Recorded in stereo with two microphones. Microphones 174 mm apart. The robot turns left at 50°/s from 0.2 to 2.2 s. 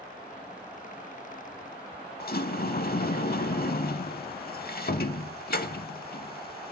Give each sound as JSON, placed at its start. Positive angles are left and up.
{"t": 2.2, "sound": "a sliding door", "side_deg": 65, "distance_m": 0.5}